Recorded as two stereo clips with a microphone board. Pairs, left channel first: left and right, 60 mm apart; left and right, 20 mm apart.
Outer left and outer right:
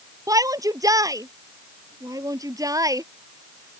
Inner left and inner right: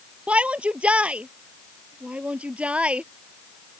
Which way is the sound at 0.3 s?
80° right.